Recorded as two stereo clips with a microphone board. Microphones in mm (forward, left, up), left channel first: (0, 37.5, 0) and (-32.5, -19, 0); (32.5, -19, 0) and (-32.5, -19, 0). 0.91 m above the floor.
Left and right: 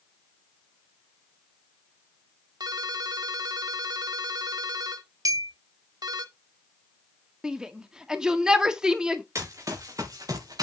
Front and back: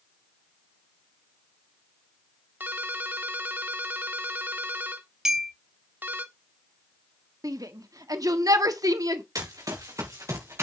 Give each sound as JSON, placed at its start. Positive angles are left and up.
{"t": 2.6, "sound": "a ringtone", "azimuth_deg": -120, "distance_m": 1.4}
{"t": 5.2, "sound": "a clink", "azimuth_deg": -100, "distance_m": 2.0}
{"t": 7.4, "sound": "a shout", "azimuth_deg": 160, "distance_m": 1.7}
{"t": 9.3, "sound": "running footsteps", "azimuth_deg": -155, "distance_m": 4.0}